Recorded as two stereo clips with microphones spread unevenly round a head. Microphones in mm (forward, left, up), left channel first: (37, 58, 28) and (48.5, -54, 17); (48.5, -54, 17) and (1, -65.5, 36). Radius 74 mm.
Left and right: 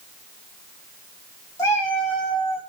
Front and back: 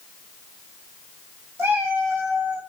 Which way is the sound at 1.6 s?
160° left.